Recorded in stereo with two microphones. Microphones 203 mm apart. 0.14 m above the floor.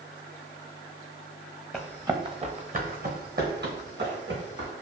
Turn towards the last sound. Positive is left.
turn(degrees=-60)  # may be behind; listen again after turning